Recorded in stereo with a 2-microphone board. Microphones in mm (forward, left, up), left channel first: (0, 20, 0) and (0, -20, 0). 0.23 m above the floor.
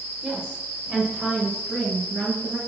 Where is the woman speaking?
15° right (ahead or behind), 3 m.